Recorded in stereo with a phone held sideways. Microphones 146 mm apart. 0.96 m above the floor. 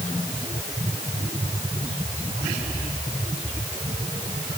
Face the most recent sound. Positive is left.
No sound to turn to.